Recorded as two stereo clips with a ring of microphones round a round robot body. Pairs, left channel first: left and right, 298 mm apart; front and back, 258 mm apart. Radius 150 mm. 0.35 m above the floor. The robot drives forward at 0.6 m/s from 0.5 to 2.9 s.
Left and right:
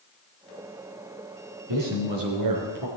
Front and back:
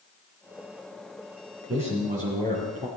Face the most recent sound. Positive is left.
turn(degrees=-120)